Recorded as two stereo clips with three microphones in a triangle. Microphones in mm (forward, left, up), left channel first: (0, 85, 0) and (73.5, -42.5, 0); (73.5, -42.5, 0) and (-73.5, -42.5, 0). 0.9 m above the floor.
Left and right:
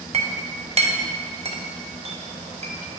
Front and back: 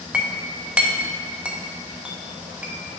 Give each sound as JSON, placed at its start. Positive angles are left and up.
{"t": 0.1, "sound": "a clink", "azimuth_deg": -95, "distance_m": 0.8}